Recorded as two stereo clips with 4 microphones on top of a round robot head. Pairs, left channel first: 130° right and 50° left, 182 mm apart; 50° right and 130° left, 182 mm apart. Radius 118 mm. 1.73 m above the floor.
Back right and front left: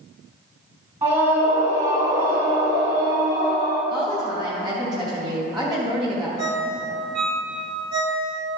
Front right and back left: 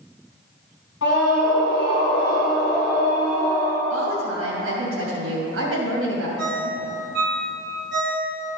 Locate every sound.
1.0 s a scream: 15° right, 2 m; by 3.8 s 15° left, 4.5 m
3.9 s a woman speaking: 120° left, 2.5 m
6.4 s a ringtone: 110° left, 1.1 m